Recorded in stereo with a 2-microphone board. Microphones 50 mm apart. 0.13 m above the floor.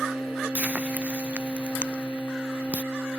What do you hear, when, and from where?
0.6 s frying: 30° right (ahead or behind)